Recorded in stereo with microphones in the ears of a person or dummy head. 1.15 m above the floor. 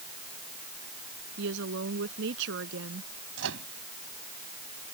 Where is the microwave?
70° right (ahead or behind).